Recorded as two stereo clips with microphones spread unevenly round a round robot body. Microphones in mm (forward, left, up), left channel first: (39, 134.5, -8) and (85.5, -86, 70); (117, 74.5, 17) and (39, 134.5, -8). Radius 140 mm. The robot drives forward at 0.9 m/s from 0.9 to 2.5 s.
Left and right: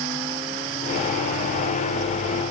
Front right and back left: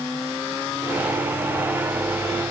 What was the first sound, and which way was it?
Only background noise.